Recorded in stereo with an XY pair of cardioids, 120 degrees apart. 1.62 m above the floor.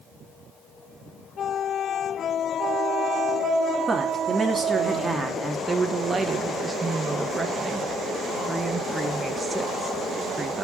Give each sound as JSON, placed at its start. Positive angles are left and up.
{"t": 3.9, "sound": "a woman speaking", "azimuth_deg": -25, "distance_m": 3.0}
{"t": 5.7, "sound": "a woman speaking", "azimuth_deg": -20, "distance_m": 2.0}